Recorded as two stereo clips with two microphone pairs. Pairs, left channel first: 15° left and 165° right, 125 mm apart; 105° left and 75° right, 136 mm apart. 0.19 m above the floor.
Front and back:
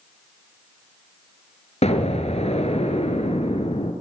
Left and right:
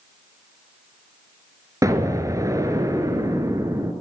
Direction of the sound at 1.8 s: 10° right.